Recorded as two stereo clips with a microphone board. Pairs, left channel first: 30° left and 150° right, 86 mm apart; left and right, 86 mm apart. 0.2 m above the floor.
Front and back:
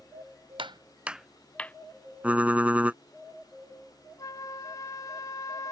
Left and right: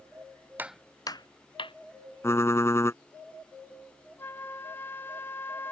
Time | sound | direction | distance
0.6 | footsteps | 160° right | ?
2.2 | typing on a keyboard | 140° left | ?
4.2 | a flute | 40° left | ?